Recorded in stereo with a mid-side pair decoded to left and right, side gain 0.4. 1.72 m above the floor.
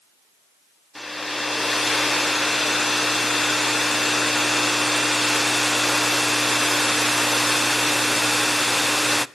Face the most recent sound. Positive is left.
turn(degrees=15)